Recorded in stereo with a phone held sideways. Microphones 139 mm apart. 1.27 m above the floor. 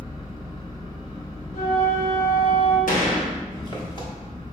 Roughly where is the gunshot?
Left.